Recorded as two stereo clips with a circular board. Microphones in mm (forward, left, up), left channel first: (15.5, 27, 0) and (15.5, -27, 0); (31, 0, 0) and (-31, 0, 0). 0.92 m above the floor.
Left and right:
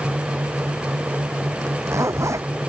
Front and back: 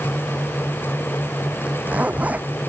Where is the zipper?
115° right.